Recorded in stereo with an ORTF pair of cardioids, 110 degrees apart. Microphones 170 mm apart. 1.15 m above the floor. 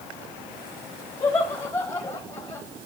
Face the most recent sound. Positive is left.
turn(degrees=15)